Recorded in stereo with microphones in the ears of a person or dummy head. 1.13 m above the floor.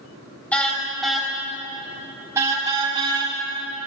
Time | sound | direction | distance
0.5 | a car horn | 5° left (ahead or behind) | 4 m